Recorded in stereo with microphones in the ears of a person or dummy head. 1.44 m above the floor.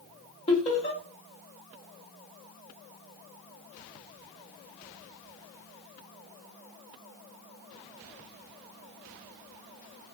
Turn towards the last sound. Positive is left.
turn(degrees=30)  # may be behind; listen again after turning